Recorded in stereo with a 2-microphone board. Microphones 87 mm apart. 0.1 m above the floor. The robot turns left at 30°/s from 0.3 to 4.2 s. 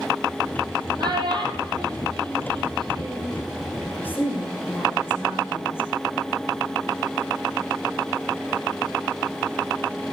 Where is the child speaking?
50° right (ahead or behind), 2.5 m; by 3.4 s 45° right (ahead or behind), 2.5 m.